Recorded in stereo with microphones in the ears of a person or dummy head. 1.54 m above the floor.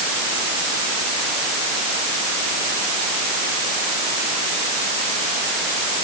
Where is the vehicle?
I don't hear a vehicle.